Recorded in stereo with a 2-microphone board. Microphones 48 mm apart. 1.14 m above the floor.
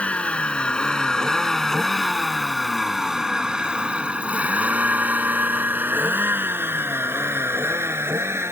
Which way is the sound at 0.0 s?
30° left (ahead or behind).